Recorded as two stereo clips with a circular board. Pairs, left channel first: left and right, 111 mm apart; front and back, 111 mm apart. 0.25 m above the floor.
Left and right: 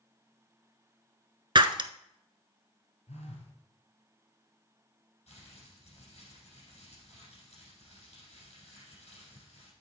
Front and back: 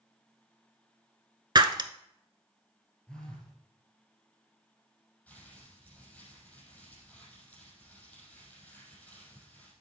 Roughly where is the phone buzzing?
Left.